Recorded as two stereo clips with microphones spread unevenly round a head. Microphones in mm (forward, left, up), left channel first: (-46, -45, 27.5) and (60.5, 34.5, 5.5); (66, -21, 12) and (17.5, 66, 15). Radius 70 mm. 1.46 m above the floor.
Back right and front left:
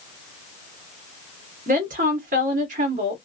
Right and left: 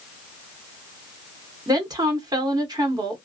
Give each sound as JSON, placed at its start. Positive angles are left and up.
{"t": 1.7, "sound": "a woman speaking", "azimuth_deg": 70, "distance_m": 1.4}